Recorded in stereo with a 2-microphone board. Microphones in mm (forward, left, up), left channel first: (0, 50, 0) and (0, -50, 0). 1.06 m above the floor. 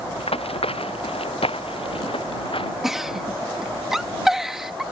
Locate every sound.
0.2 s running footsteps: 70° left (ahead or behind); by 2.7 s 60° left (ahead or behind)
2.8 s a giggle: 5° right (ahead or behind)